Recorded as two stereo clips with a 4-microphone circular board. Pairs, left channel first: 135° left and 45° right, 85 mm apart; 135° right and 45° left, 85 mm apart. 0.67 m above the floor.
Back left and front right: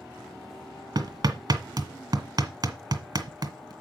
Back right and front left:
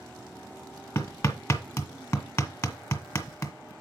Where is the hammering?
85° right, 1.1 m.